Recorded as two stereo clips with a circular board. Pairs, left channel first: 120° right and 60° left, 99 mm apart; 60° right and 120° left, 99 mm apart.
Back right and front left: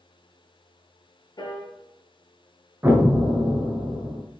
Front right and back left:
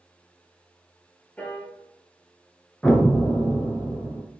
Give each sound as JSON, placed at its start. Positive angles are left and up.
{"t": 1.4, "sound": "a piano", "azimuth_deg": -130, "distance_m": 1.3}
{"t": 2.8, "sound": "an explosion", "azimuth_deg": 15, "distance_m": 0.8}